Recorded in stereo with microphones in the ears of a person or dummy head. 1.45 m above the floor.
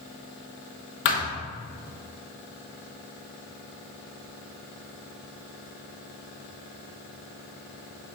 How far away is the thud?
About 1.1 m.